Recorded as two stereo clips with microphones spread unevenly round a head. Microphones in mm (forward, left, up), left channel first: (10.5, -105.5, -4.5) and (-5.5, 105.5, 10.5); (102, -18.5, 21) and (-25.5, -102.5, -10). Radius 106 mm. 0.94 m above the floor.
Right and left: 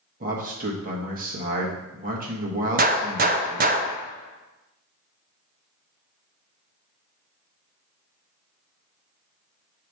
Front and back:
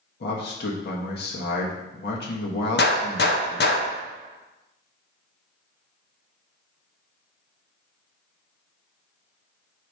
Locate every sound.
0.2 s a man speaking: 45° left, 1.3 m
2.8 s a gunshot: 45° left, 0.6 m